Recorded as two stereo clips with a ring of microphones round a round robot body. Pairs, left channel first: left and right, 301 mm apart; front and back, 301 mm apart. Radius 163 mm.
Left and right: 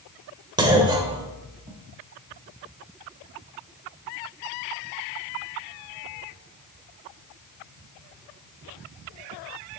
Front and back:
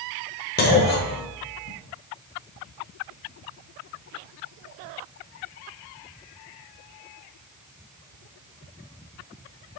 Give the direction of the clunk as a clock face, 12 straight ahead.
1 o'clock.